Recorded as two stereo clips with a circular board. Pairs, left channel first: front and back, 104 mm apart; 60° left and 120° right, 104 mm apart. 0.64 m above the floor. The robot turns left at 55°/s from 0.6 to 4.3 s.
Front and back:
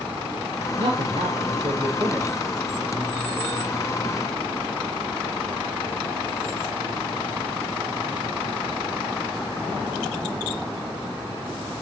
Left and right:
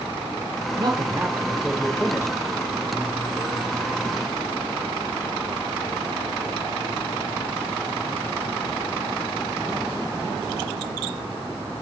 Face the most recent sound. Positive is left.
turn(degrees=10)